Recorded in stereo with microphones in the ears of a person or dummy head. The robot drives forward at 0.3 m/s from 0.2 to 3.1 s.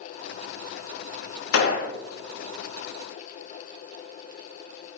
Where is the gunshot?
85° left, 0.7 m; by 1.9 s 80° left, 0.7 m.